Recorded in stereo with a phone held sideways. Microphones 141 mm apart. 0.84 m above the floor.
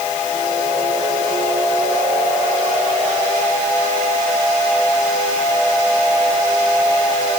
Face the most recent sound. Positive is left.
No sound to turn to.